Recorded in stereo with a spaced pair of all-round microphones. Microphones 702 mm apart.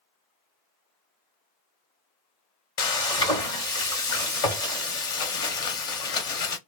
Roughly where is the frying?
Left.